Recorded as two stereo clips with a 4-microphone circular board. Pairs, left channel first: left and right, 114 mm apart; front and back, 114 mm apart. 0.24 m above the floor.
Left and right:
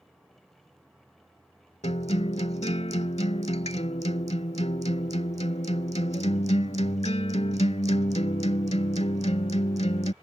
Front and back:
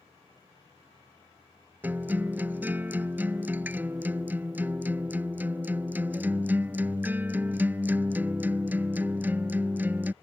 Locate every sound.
1.8 s a guitar: 105° left